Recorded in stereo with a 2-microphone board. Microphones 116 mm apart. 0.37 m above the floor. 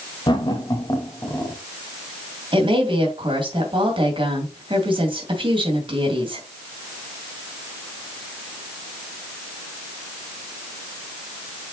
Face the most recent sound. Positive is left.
turn(degrees=-50)  # may be behind; listen again after turning